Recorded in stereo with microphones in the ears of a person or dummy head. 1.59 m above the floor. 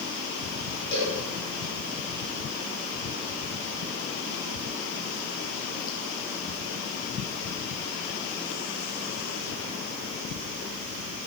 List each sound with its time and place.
0.9 s a cowbell: 65° left (ahead or behind), 5 m